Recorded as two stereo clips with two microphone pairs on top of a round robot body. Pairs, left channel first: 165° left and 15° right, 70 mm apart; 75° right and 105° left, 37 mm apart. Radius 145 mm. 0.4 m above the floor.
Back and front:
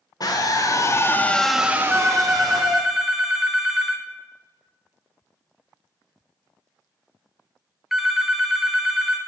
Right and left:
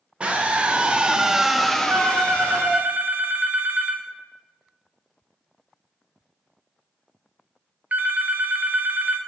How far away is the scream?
About 1.9 m.